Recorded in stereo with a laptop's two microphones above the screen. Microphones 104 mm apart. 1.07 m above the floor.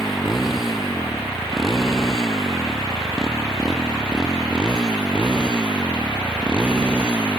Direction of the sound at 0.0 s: 5° right (ahead or behind).